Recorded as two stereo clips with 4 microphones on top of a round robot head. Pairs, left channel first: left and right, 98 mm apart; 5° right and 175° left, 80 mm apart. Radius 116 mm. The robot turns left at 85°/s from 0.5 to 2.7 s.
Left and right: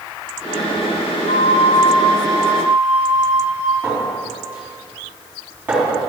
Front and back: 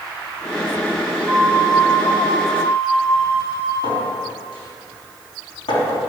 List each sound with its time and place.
1.3 s a flute: 100° left, 3 m; by 3.7 s 20° right, 3 m
3.8 s a clink: 15° right, 4 m